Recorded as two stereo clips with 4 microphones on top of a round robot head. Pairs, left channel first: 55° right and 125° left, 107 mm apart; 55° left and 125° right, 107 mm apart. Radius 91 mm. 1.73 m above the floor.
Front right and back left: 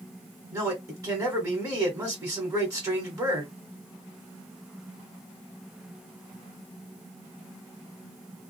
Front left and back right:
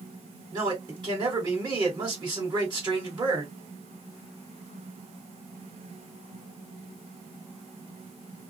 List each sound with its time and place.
0.5 s a man speaking: 175° right, 1.5 m